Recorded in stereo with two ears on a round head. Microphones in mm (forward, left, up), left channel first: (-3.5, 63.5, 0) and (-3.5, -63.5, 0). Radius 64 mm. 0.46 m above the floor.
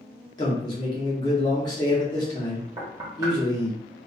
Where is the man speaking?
30° left (ahead or behind), 0.9 m.